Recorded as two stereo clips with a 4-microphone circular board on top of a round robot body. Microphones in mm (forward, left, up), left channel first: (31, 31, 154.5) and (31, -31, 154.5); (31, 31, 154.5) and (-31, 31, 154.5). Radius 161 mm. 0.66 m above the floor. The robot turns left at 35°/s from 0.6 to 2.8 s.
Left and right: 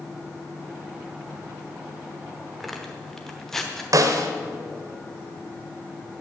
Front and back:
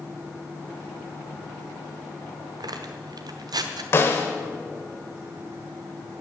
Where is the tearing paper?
175° right, 0.9 m; by 3.8 s 175° left, 0.9 m.